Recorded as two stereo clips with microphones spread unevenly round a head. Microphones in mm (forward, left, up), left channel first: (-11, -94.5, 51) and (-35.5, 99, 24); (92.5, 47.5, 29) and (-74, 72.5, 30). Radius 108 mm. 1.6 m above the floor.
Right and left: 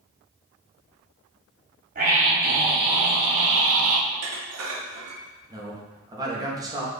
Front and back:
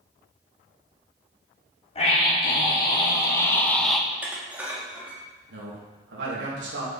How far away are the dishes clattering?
About 2.5 m.